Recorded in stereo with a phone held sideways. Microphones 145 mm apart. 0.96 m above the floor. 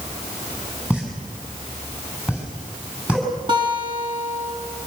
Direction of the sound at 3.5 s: 35° right (ahead or behind).